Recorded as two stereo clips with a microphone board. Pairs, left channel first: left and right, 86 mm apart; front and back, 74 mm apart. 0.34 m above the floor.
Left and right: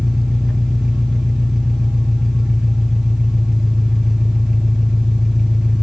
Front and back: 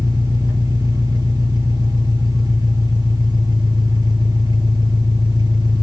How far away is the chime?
No chime in this recording.